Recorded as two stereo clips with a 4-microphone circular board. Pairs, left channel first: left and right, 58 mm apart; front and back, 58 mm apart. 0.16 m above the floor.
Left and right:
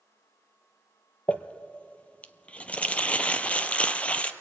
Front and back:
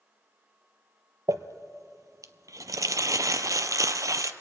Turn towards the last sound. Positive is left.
turn(degrees=160)